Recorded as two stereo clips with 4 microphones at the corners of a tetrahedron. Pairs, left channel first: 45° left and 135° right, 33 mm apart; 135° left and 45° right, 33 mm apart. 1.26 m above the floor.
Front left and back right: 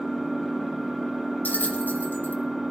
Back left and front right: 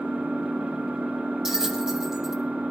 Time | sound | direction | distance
0.0 | an engine running | 50° right | 5.5 m
1.4 | a bell | 30° left | 1.2 m